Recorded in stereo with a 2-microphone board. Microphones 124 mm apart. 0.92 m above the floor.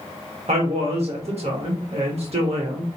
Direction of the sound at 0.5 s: 60° right (ahead or behind).